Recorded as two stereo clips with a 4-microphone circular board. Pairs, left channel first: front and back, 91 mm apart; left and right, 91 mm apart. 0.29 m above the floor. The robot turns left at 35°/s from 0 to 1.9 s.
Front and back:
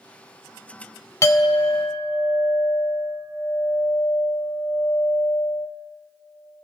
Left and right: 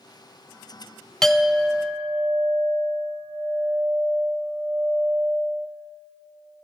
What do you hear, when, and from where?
1.2 s a clink: 10° left, 0.6 m; by 5.7 s 15° right, 0.6 m